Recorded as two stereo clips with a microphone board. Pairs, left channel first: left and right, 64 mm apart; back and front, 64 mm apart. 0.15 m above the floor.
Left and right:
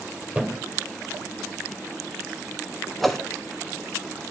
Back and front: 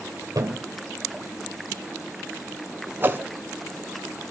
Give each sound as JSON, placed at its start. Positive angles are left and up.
{"t": 0.3, "sound": "a thud", "azimuth_deg": -15, "distance_m": 2.0}
{"t": 3.0, "sound": "a whoosh", "azimuth_deg": 5, "distance_m": 1.0}